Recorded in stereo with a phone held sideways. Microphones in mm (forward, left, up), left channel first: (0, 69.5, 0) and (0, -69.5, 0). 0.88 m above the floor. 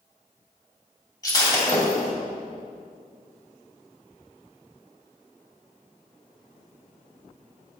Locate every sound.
1.2 s breaking glass: 25° left (ahead or behind), 2.5 m